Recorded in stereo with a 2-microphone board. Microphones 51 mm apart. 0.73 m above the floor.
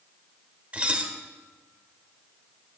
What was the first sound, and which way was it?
Dishes clattering, 25° right (ahead or behind).